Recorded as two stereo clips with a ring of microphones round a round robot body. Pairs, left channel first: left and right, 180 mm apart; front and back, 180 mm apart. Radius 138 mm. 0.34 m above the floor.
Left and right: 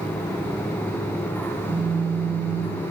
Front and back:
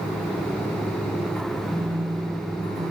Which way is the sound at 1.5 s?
95° right.